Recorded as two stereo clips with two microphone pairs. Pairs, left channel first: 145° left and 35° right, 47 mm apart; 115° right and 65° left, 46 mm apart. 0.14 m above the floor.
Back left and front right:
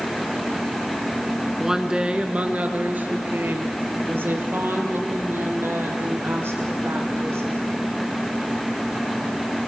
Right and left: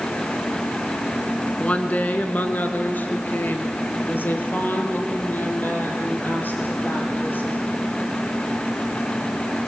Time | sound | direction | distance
1.6 | a woman speaking | 110° right | 1.2 m